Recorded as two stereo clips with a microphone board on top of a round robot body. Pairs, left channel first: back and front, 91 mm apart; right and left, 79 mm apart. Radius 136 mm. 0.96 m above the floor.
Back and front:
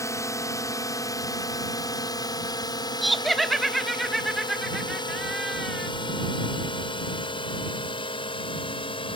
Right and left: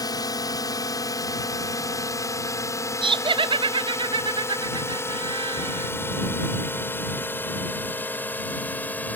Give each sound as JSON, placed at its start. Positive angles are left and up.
{"t": 0.0, "sound": "a drone", "azimuth_deg": -125}
{"t": 3.0, "sound": "laughter", "azimuth_deg": 90}